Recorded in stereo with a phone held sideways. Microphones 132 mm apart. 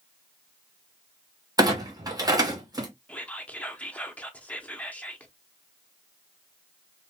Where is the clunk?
30° right (ahead or behind), 0.8 m.